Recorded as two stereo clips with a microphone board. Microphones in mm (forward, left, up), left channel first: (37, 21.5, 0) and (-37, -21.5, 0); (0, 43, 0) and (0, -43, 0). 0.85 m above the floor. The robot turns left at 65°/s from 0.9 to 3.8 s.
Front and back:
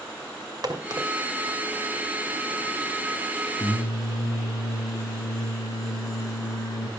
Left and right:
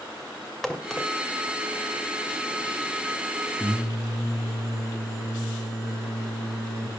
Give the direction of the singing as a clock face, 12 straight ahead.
12 o'clock.